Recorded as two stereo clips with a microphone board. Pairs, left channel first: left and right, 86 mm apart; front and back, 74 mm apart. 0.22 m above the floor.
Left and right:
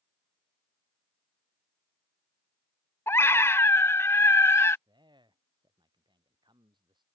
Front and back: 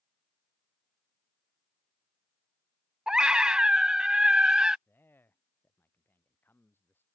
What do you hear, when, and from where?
3.1 s a scream: 110° left
4.9 s a man speaking: 65° right